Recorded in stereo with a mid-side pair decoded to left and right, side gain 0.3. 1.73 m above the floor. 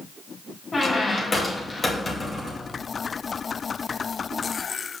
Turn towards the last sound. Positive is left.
turn(degrees=40)